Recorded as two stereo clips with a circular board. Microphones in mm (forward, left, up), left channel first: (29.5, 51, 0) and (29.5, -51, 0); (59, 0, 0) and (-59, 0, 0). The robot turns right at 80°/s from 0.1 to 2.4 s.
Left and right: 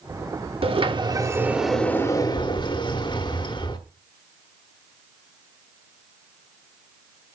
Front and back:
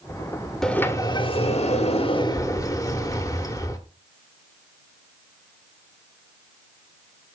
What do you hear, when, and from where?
0.6 s a sliding door: 85° right, 1.0 m; by 3.8 s 55° left, 1.0 m